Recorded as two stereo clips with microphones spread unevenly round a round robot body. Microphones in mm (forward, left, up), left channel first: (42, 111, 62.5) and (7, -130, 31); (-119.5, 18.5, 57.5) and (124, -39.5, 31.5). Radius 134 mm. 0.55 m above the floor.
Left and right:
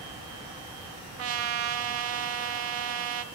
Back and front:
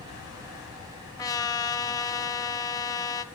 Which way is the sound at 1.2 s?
115° right.